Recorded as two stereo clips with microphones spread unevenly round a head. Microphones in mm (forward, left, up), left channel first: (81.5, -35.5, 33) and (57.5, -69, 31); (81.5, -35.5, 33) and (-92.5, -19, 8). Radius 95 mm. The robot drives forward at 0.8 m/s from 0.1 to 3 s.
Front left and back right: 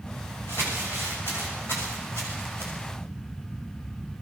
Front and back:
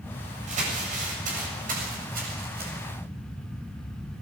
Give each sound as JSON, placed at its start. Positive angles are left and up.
{"t": 0.5, "sound": "crumpling", "azimuth_deg": 120, "distance_m": 7.0}